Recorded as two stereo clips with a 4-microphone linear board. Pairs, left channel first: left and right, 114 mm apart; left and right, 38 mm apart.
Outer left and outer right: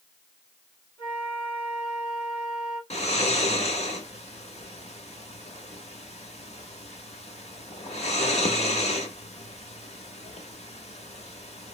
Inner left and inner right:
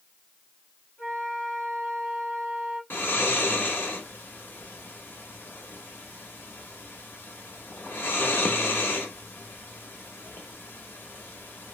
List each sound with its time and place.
1.0 s a flute: 55° left (ahead or behind), 2 m
2.9 s snoring: 80° left, 1.0 m